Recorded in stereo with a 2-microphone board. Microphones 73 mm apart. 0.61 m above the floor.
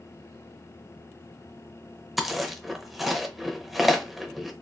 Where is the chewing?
Centre (ahead or behind), 0.5 m.